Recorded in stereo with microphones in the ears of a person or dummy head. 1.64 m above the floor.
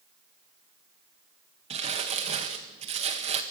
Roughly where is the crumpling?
Right.